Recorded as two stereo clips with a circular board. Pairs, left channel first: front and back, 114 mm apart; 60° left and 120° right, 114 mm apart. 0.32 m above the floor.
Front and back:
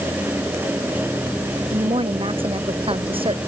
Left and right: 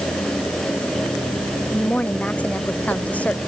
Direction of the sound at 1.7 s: 140° left.